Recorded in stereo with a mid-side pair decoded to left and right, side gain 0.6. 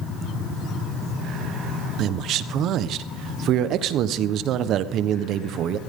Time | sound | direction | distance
2.0 | a man speaking | 55° right | 1.2 m